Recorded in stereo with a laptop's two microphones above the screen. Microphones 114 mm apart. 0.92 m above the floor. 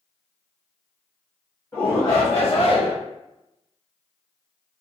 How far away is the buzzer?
No buzzer in this recording.